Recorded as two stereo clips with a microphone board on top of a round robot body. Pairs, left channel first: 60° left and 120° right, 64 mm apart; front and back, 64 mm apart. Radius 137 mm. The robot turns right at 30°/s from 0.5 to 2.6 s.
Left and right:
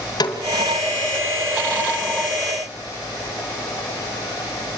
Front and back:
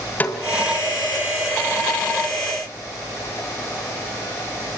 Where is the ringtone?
I don't hear a ringtone.